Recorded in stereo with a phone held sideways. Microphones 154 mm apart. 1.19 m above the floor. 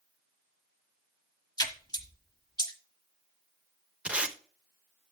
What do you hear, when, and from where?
1.6 s a splash: 25° left (ahead or behind), 1.2 m
4.0 s tape being pulled: 5° right (ahead or behind), 0.9 m